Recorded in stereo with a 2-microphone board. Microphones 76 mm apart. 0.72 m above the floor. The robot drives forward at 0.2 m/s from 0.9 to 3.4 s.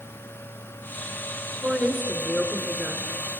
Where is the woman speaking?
20° right (ahead or behind), 2.5 m; by 3.4 s 25° right (ahead or behind), 2 m.